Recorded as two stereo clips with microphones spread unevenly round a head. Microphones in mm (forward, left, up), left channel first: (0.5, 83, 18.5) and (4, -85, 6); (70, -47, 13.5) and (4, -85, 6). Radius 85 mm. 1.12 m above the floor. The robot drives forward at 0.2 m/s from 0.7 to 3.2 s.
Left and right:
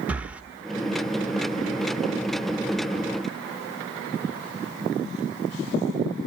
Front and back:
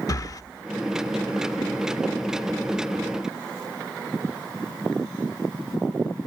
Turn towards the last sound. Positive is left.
turn(degrees=-105)